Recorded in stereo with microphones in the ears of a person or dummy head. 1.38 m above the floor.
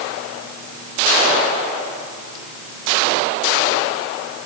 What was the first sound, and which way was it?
Only background noise.